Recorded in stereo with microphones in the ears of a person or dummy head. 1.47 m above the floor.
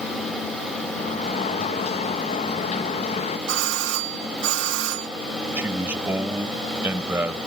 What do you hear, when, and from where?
1.0 s a sliding door: 40° left (ahead or behind)
3.5 s a doorbell: 70° right (ahead or behind)
5.6 s a man speaking: 10° right (ahead or behind)